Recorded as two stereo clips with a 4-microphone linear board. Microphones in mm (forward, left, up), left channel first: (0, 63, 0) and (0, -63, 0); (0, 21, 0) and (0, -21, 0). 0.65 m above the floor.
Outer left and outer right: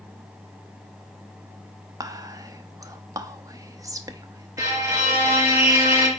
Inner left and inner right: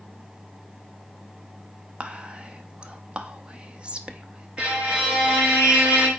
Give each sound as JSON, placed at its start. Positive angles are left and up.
{"t": 2.0, "sound": "whispering", "side_deg": -30, "distance_m": 0.8}
{"t": 4.6, "sound": "a violin", "side_deg": -20, "distance_m": 4.5}